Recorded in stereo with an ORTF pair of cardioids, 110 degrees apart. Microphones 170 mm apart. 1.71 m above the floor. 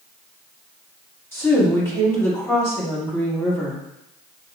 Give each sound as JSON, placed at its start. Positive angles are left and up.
{"t": 1.3, "sound": "a woman speaking", "azimuth_deg": 15, "distance_m": 2.5}